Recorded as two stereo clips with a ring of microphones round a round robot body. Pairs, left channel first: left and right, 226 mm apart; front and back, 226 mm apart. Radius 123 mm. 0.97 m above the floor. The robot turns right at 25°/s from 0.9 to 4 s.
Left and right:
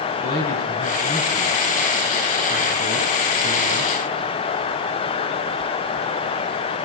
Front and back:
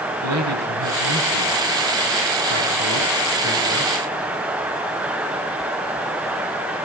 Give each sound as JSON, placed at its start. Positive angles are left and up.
{"t": 0.2, "sound": "a man speaking", "azimuth_deg": 150, "distance_m": 8.0}